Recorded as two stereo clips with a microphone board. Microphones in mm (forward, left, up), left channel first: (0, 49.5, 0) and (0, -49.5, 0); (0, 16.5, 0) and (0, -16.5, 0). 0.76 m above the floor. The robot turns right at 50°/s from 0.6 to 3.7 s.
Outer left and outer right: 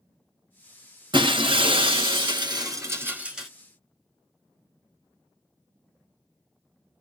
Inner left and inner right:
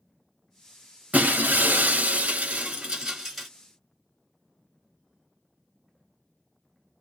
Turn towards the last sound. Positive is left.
turn(degrees=10)